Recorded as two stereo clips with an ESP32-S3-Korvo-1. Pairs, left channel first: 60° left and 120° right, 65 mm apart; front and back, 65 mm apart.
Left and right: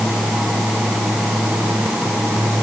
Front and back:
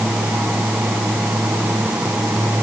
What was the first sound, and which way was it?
Only background noise.